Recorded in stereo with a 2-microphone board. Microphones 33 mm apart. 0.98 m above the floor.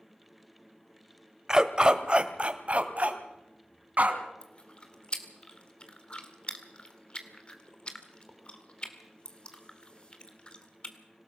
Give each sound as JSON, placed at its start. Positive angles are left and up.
{"t": 1.5, "sound": "a dog barking", "side_deg": -20, "distance_m": 1.2}
{"t": 4.4, "sound": "chewing", "side_deg": 35, "distance_m": 2.5}